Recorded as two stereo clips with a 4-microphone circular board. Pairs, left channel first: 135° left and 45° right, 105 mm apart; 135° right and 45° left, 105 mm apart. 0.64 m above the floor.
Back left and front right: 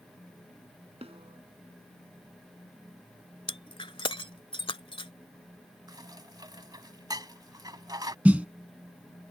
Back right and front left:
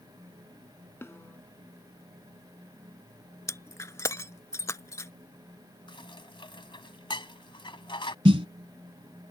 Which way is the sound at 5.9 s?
95° right.